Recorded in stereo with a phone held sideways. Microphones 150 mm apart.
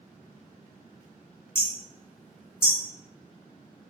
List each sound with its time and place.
1.6 s hammering: 15° left (ahead or behind), 1.0 m